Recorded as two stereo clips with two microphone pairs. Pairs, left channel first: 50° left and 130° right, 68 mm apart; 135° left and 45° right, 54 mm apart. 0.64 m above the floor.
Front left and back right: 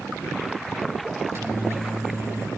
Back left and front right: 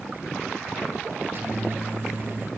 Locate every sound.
1.2 s a microwave: 85° right, 4.5 m